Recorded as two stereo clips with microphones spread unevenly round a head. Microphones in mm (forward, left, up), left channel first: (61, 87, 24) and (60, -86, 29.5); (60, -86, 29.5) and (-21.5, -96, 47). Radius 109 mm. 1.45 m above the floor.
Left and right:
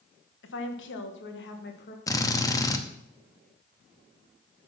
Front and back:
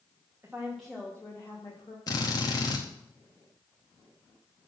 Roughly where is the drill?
Ahead left.